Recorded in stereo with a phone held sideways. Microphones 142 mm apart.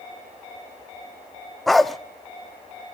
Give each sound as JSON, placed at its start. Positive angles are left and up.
{"t": 1.7, "sound": "a dog barking", "side_deg": 0, "distance_m": 0.5}